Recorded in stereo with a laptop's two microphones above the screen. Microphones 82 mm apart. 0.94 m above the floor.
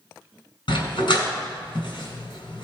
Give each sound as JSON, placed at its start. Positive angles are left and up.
{"t": 0.7, "sound": "a dog barking", "side_deg": 75, "distance_m": 2.5}